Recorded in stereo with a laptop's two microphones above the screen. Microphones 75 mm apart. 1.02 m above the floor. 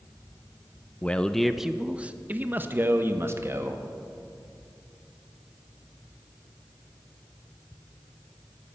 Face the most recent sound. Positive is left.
turn(degrees=-35)  # may be behind; listen again after turning